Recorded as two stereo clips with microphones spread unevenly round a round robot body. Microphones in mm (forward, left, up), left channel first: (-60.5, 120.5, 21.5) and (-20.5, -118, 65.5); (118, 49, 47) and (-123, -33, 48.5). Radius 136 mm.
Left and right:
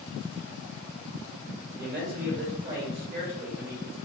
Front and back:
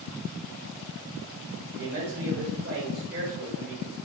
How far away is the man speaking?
About 1.9 m.